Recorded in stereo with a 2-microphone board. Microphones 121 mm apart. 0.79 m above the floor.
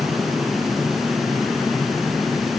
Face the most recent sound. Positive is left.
No sound to turn to.